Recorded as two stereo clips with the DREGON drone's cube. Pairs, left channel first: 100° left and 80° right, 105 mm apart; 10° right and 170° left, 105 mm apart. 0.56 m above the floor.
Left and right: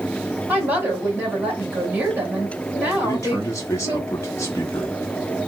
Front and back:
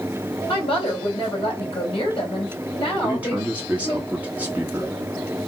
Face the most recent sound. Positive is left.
turn(degrees=110)